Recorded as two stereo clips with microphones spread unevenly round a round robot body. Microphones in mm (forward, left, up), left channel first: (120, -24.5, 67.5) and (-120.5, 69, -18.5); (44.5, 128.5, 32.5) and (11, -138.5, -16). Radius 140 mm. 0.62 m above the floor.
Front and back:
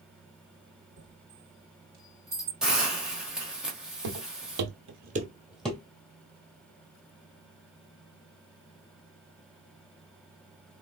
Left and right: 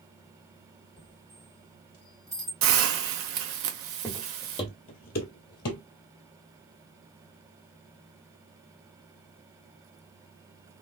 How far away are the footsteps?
About 1.1 m.